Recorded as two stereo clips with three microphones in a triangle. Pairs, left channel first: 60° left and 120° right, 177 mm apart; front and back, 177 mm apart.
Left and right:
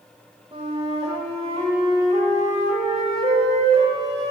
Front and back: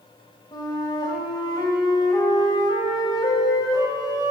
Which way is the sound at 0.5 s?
65° right.